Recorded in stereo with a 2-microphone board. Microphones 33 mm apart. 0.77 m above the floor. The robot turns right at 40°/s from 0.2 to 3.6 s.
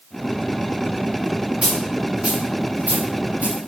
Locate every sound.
1.6 s a dropped coin: 10° right (ahead or behind), 5.5 m; by 3.6 s 85° right, 5.5 m